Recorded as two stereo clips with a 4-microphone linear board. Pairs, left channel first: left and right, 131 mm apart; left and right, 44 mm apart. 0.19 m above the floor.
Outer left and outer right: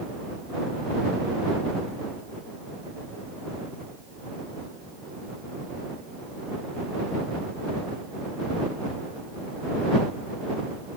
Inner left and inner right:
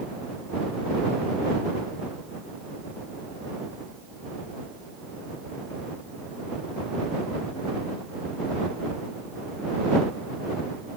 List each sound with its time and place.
Only background noise.